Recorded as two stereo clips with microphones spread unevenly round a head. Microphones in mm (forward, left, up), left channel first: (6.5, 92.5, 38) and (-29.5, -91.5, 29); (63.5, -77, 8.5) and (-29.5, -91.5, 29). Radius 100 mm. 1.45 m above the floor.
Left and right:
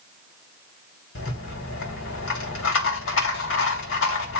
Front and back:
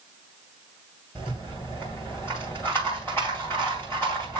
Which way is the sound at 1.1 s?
95° left.